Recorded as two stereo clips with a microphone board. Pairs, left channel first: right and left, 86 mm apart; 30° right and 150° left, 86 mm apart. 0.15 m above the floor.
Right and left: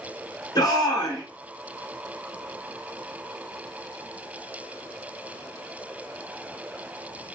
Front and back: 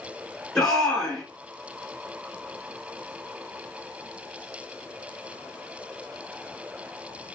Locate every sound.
0.6 s a shout: 115° right, 1.6 m